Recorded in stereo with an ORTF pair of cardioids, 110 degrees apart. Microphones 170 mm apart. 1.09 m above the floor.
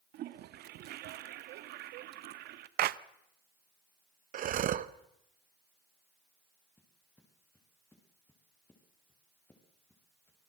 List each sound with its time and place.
0.1 s a toilet flushing: 70° right, 1.0 m
2.8 s a clap: 55° right, 0.6 m
4.3 s breathing: 50° right, 0.8 m
6.8 s footsteps: 10° left, 7 m